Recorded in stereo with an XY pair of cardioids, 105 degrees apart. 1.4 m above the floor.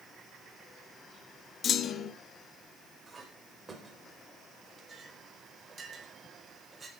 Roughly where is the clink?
Ahead right.